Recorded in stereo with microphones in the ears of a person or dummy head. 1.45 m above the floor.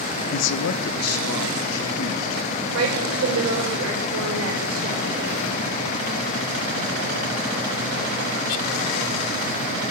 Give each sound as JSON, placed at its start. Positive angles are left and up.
{"t": 0.3, "sound": "a man speaking", "side_deg": 35, "distance_m": 0.5}
{"t": 2.7, "sound": "a woman speaking", "side_deg": -85, "distance_m": 4.0}